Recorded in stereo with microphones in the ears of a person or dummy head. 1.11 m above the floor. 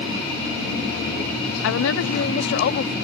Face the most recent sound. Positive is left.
turn(degrees=60)  # may be behind; listen again after turning